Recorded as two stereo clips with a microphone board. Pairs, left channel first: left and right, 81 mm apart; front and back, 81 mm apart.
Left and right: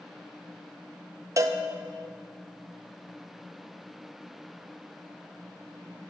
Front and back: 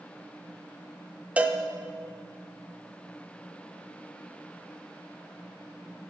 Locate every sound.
1.4 s a cowbell: 115° right, 0.6 m